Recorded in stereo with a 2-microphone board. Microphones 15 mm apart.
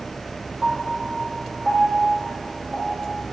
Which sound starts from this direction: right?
A piano, at 0.6 s.